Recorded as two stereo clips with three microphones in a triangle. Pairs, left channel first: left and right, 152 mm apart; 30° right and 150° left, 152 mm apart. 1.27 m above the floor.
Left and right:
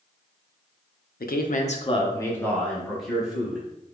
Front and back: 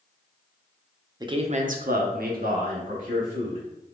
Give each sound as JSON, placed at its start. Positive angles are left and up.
{"t": 1.2, "sound": "a man speaking", "azimuth_deg": 90, "distance_m": 0.6}